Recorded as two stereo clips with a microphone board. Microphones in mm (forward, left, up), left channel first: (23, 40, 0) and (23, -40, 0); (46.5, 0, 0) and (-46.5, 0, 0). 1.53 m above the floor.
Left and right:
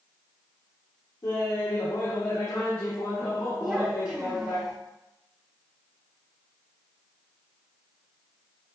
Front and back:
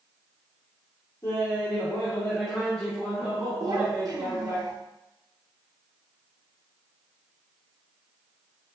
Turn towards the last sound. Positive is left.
turn(degrees=-165)